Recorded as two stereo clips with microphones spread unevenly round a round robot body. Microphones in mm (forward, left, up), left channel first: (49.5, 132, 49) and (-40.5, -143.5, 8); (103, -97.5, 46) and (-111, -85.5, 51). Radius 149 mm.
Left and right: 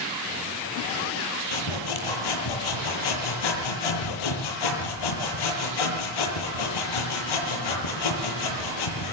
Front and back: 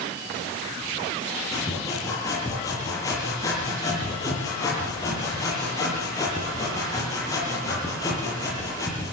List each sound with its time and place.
1.5 s sawing: 75° left, 8.5 m